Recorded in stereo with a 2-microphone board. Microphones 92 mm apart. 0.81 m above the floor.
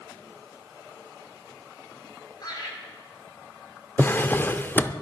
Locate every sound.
2.4 s laughter: 50° left (ahead or behind), 5.5 m
4.0 s a drawer: 25° left (ahead or behind), 0.5 m